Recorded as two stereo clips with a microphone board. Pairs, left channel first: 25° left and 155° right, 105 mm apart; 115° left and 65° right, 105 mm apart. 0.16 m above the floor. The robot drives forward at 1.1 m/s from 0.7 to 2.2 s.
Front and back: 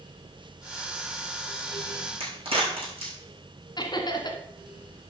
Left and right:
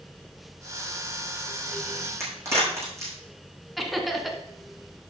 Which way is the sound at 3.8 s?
25° left.